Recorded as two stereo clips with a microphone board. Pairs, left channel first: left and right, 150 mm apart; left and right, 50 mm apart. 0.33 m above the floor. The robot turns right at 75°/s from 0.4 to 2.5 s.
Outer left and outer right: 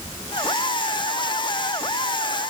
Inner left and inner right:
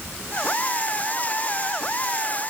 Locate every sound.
Only background noise.